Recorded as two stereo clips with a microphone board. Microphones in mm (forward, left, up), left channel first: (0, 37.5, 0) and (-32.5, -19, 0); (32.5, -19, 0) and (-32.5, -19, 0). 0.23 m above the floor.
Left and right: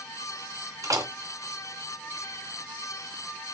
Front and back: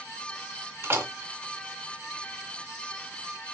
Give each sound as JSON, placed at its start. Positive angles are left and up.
{"t": 0.8, "sound": "a door slam", "azimuth_deg": -135, "distance_m": 1.6}